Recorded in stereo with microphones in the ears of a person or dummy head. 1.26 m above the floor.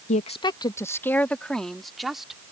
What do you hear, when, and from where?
0.1 s a woman speaking: 40° left (ahead or behind); by 2.4 s 5° right (ahead or behind)